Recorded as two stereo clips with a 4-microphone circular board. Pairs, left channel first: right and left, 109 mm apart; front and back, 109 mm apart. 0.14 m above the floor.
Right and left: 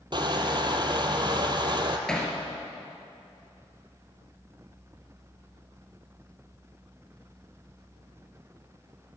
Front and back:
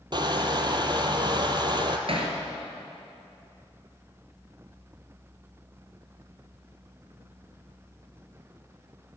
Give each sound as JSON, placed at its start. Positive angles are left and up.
{"t": 0.1, "sound": "crushing", "azimuth_deg": 135, "distance_m": 0.9}
{"t": 2.1, "sound": "hammering", "azimuth_deg": -175, "distance_m": 2.0}